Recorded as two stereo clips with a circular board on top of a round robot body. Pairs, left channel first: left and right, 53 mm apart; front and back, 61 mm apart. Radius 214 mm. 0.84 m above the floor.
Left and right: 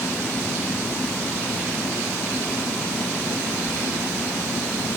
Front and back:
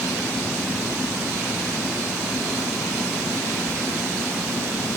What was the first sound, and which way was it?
Only background noise.